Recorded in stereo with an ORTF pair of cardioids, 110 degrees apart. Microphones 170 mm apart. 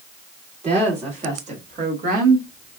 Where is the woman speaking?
40° right, 2.5 m; by 2.5 s 60° right, 2 m.